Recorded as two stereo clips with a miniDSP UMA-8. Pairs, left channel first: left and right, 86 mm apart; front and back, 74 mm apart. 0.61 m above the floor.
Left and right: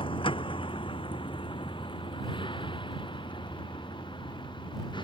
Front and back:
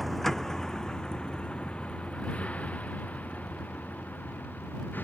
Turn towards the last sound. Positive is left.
turn(degrees=65)